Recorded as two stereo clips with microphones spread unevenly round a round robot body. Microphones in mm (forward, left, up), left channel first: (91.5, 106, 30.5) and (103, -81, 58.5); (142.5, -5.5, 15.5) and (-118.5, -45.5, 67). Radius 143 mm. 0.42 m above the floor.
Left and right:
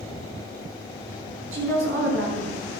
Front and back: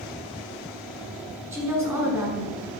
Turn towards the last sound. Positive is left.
turn(degrees=-90)